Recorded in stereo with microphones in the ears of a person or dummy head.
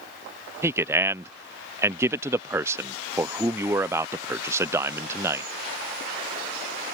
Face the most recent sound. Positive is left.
turn(degrees=-15)  # may be behind; listen again after turning